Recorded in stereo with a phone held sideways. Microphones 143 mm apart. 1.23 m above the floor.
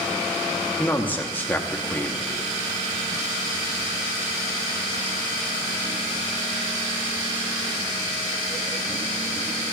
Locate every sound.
0.8 s a man speaking: 15° left (ahead or behind), 0.7 m